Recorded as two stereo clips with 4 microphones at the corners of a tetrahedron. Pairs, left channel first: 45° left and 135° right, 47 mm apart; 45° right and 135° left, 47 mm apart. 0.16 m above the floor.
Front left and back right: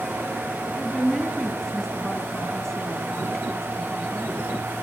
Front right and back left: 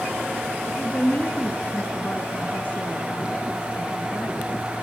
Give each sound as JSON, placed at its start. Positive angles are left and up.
{"t": 0.7, "sound": "a woman speaking", "azimuth_deg": -25, "distance_m": 1.4}